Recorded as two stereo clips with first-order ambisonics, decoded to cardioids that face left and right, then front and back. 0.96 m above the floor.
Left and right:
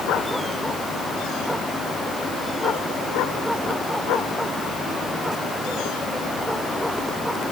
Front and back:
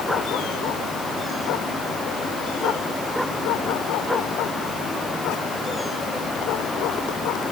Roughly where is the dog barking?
I don't hear a dog barking.